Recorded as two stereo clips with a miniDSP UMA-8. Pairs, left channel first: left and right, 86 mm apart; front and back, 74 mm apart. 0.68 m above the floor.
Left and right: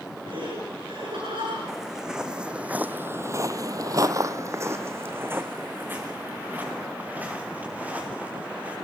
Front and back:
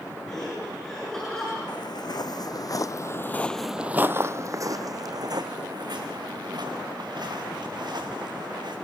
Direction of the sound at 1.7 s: 5° right.